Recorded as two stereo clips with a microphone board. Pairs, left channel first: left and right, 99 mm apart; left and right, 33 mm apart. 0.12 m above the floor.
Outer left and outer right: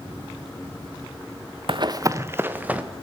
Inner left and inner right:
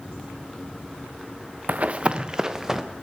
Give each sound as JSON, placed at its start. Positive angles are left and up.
{"t": 1.7, "sound": "running footsteps", "side_deg": -55, "distance_m": 0.5}